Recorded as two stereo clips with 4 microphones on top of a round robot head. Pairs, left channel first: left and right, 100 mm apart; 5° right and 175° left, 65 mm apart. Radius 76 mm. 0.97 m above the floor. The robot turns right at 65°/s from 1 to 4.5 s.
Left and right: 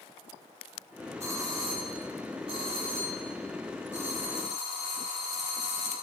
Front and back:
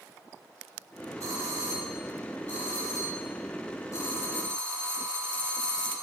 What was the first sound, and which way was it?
A doorbell, 150° right.